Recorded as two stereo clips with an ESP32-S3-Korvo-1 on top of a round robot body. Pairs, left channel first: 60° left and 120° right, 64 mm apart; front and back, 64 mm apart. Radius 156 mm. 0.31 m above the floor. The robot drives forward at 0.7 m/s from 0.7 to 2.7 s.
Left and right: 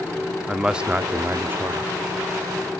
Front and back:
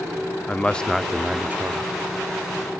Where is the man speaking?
55° right, 0.9 m; by 1.9 s 155° right, 1.1 m.